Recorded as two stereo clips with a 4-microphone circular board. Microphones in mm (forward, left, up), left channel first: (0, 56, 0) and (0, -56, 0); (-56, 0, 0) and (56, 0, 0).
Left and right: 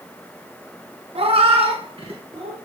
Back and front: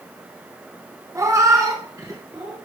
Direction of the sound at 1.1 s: 65° right.